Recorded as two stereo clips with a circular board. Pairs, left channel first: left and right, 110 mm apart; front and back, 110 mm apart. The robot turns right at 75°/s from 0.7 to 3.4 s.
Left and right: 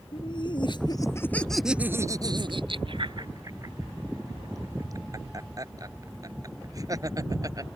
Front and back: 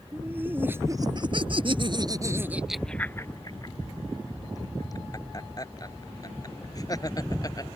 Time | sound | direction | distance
0.1 | laughter | 115° left | ?